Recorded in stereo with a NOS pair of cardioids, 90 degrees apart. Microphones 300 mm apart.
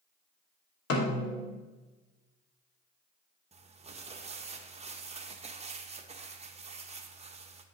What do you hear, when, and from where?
0.9 s a snare drum: 55° left, 1.6 m
3.5 s crumpling: 20° right, 0.8 m